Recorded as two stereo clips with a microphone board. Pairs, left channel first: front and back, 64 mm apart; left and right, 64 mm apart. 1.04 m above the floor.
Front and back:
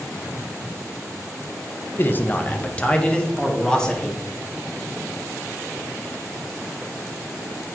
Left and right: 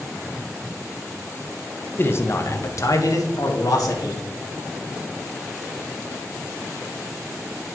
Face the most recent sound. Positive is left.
turn(degrees=80)